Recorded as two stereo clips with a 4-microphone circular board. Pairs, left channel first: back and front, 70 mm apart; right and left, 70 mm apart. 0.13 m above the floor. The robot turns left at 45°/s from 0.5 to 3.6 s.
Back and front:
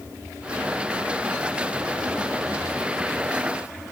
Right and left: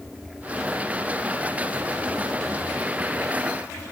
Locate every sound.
Only background noise.